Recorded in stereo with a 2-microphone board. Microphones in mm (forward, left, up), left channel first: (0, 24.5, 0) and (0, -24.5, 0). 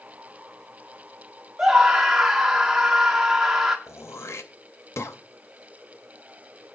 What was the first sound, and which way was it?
A scream, 10° right (ahead or behind).